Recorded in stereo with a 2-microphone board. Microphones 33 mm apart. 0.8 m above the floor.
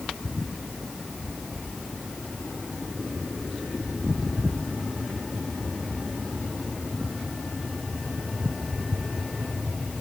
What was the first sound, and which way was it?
Only background noise.